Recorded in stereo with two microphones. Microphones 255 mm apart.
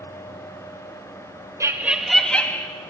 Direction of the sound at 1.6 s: 10° right (ahead or behind).